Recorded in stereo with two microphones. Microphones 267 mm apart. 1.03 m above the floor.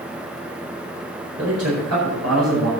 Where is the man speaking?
60° right (ahead or behind), 5 m; by 2.7 s 70° right (ahead or behind), 5.5 m.